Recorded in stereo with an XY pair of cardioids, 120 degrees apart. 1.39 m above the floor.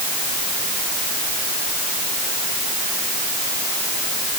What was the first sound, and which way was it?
Only background noise.